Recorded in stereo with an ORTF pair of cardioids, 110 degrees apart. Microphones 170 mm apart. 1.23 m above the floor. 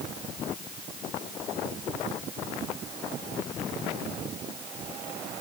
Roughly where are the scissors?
No scissors in this recording.